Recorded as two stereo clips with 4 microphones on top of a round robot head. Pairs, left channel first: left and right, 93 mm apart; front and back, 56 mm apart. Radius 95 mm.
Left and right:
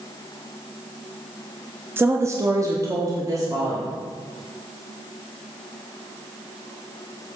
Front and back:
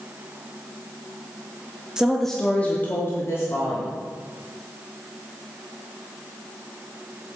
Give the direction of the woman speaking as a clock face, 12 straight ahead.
4 o'clock.